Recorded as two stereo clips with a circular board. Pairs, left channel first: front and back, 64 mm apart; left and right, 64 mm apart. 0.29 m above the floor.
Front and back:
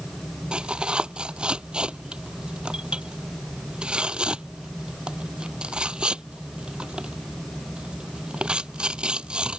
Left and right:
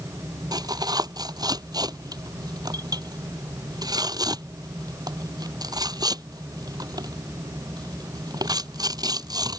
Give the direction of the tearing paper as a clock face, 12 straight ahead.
3 o'clock.